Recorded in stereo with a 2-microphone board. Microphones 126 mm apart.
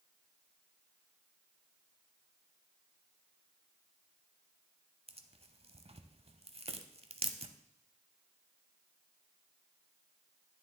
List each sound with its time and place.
5.1 s tearing paper: 55° right (ahead or behind), 0.7 m